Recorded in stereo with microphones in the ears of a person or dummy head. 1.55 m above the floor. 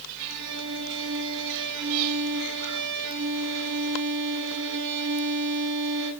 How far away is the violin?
About 7 m.